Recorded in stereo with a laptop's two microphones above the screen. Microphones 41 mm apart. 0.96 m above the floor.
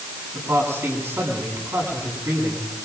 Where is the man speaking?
85° right, 8.5 m.